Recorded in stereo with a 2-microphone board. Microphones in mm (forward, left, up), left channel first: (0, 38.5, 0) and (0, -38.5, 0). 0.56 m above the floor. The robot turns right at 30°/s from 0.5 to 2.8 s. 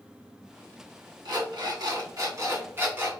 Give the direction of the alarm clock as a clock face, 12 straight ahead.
3 o'clock.